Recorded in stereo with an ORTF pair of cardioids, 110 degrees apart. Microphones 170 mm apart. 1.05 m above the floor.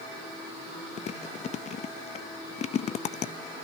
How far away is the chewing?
About 0.7 m.